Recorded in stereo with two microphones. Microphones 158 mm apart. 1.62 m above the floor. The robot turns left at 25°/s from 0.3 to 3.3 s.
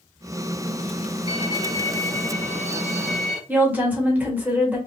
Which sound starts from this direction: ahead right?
A violin, at 1.3 s.